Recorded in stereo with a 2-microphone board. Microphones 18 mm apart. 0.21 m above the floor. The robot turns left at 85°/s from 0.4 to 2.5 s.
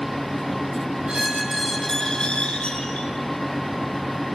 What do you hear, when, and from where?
1.1 s a squeak: 130° right, 6 m; by 3.1 s 110° left, 6 m